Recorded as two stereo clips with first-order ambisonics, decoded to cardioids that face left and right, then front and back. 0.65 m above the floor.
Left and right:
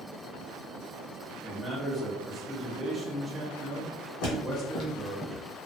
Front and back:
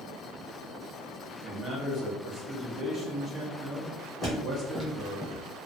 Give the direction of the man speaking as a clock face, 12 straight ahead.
5 o'clock.